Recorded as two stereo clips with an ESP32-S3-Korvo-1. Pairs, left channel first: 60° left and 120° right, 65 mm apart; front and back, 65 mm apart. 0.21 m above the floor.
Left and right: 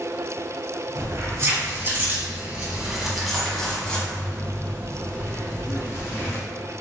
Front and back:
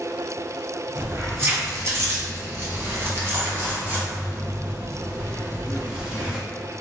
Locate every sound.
0.9 s keys jangling: 140° right, 1.6 m; by 6.4 s 105° left, 2.5 m